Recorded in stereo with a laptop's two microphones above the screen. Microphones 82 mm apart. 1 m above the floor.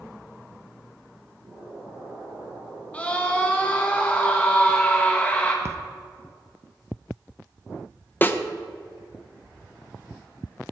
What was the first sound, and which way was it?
An explosion, 60° right (ahead or behind).